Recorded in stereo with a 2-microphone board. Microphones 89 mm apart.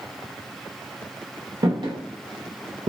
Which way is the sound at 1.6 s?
55° right (ahead or behind).